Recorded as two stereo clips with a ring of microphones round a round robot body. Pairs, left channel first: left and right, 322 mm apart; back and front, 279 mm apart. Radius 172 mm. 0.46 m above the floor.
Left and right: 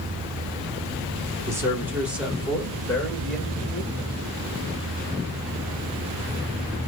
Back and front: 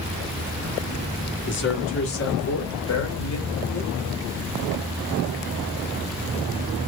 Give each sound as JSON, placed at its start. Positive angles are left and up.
{"t": 1.5, "sound": "a man speaking", "azimuth_deg": -165, "distance_m": 1.5}